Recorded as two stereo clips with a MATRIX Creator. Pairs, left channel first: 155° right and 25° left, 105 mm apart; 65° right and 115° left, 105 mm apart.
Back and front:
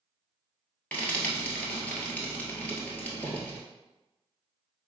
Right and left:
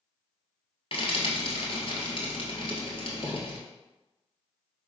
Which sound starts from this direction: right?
Frying, at 0.9 s.